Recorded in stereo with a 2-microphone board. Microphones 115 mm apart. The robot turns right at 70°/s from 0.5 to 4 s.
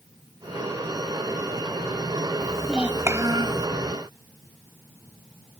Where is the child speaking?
165° left; by 3.7 s 110° right.